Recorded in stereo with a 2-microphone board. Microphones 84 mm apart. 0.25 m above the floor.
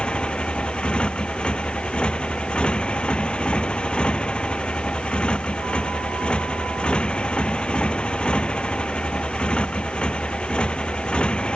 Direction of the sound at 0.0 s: 10° left (ahead or behind).